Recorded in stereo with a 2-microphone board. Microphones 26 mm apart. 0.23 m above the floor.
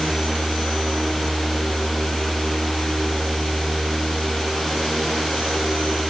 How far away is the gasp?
I don't hear a gasp.